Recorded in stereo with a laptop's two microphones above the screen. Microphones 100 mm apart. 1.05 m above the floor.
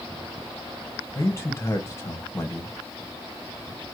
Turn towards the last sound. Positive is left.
turn(degrees=25)  # may be behind; listen again after turning